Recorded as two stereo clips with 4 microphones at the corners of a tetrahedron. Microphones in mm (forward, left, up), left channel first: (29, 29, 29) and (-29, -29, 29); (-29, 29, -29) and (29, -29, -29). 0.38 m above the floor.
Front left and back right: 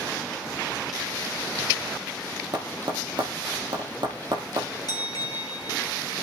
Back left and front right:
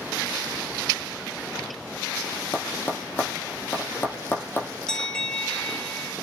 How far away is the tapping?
About 3 m.